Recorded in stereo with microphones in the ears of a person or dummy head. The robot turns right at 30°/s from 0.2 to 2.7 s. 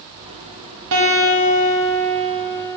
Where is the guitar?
80° right, 1.5 m; by 2.8 s 25° right, 1.5 m.